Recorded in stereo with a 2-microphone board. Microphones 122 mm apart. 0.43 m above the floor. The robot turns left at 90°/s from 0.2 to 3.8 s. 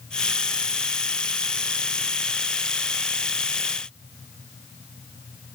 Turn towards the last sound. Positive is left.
No sound to turn to.